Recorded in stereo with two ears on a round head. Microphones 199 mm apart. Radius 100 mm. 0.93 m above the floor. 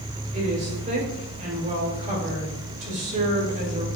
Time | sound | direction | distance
0.3 | a woman speaking | 35° right (ahead or behind) | 4 m